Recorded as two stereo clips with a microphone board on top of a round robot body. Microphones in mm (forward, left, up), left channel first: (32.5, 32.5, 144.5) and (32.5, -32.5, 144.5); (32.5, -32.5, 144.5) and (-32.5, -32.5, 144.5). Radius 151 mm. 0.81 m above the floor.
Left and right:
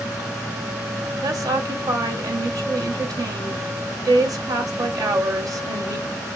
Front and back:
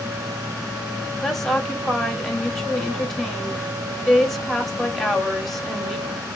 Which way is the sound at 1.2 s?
85° right.